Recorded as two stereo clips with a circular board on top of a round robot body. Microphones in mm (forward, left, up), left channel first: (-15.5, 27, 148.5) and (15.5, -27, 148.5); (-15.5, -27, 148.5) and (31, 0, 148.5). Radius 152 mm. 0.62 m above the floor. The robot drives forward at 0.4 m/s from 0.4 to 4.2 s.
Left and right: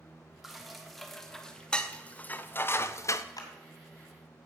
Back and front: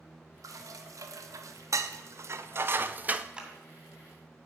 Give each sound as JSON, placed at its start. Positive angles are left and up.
{"t": 0.4, "sound": "dishes clattering", "azimuth_deg": 25, "distance_m": 1.3}
{"t": 3.4, "sound": "a clap", "azimuth_deg": 105, "distance_m": 2.5}